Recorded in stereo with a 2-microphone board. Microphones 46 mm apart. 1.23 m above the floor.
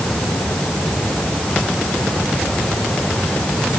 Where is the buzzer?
No buzzer in this recording.